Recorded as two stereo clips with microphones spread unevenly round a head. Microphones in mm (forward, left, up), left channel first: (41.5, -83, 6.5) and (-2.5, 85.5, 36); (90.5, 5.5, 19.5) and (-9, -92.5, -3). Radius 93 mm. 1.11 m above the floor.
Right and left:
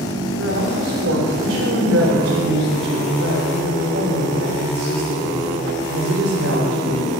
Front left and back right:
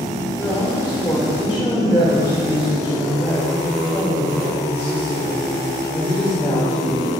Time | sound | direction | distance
0.4 | a woman speaking | 120° left | 4 m